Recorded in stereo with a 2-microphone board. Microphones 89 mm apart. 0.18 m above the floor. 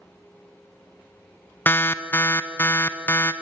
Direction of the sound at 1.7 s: 25° left (ahead or behind).